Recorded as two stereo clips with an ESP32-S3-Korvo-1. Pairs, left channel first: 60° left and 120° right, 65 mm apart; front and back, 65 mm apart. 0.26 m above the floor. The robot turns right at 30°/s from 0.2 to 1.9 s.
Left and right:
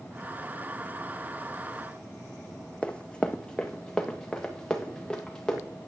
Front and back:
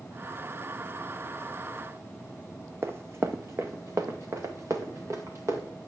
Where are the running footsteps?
135° left, 0.8 m; by 5.6 s 140° left, 3 m.